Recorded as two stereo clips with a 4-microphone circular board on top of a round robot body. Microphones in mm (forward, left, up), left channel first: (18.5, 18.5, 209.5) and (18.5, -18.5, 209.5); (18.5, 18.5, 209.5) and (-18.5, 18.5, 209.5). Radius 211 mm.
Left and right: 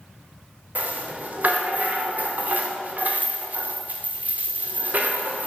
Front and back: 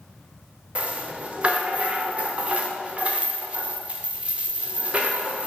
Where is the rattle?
125° right, 0.7 m.